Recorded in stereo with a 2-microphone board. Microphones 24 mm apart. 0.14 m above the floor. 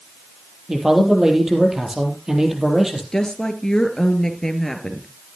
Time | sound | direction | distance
0.7 | a man speaking | 20° right (ahead or behind) | 3.5 m
3.1 | a woman speaking | 25° left (ahead or behind) | 2.5 m